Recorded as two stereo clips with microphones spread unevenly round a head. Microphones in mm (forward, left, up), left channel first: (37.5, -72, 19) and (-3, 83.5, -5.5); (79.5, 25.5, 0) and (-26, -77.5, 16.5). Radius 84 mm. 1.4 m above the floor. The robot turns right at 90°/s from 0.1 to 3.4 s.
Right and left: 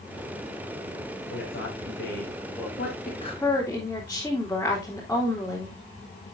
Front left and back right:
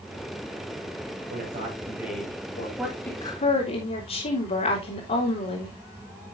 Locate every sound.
1.3 s a man speaking: 120° right, 6 m; by 2.7 s 5° left, 6 m
2.8 s a woman speaking: 50° right, 3.5 m; by 5.8 s 5° left, 3.5 m